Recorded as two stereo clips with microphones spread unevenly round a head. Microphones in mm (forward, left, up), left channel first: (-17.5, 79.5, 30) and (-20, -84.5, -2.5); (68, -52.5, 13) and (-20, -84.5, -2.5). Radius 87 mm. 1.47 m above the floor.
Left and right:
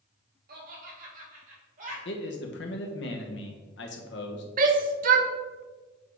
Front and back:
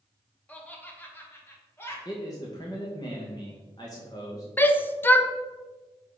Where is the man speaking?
85° left, 1.1 m.